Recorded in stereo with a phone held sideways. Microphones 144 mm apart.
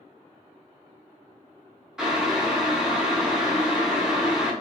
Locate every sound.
2.0 s boiling: 5° right (ahead or behind), 0.6 m